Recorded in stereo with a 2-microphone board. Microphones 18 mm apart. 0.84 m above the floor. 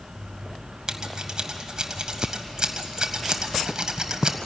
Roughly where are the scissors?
Right.